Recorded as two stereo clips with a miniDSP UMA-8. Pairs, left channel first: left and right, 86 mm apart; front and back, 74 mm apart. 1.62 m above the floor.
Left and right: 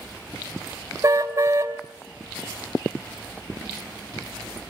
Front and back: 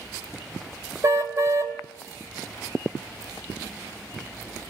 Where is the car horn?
145° right, 3 m.